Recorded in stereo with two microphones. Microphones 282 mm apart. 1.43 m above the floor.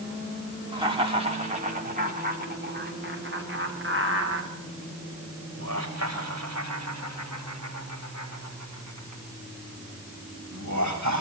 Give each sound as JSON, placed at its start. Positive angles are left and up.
{"t": 0.7, "sound": "laughter", "side_deg": -15, "distance_m": 4.5}